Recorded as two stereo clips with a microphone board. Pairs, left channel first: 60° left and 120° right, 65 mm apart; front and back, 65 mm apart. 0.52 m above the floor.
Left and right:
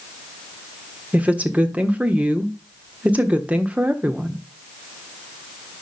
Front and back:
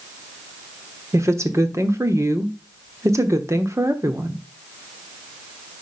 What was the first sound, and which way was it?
A woman speaking, straight behind.